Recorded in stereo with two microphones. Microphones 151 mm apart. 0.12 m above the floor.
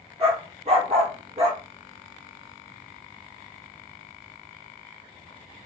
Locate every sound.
0.2 s a dog barking: 45° right (ahead or behind), 0.9 m